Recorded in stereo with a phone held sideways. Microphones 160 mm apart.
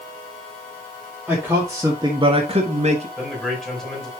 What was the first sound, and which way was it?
A man speaking, 10° right (ahead or behind).